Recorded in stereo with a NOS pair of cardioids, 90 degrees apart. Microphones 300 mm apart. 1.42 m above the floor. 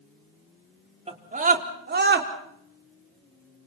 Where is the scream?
20° right, 4.5 m; by 2.3 s 40° right, 5 m.